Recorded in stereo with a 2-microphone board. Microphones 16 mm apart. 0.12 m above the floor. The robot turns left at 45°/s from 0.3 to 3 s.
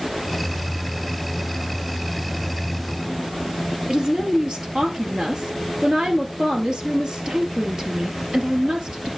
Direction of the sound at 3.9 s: 55° right (ahead or behind).